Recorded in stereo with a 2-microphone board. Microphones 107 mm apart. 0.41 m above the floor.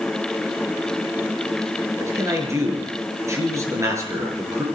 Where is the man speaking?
30° right (ahead or behind), 5.5 m.